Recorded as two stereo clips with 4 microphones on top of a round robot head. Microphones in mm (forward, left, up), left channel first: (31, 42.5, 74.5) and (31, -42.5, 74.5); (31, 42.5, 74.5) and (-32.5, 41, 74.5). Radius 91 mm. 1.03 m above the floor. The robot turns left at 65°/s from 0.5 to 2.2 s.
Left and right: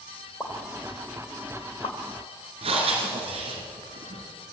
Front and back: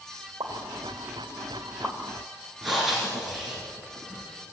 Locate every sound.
0.4 s a pop: 165° left, 3.5 m; by 2.0 s 70° left, 3.5 m
2.6 s breathing: 90° right, 4 m